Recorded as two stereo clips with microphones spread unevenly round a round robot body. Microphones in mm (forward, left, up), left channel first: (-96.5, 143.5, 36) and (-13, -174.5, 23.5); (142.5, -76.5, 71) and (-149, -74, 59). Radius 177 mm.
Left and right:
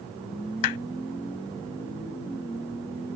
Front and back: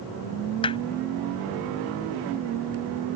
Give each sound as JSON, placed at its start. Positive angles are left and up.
{"t": 0.6, "sound": "hammering", "azimuth_deg": 75}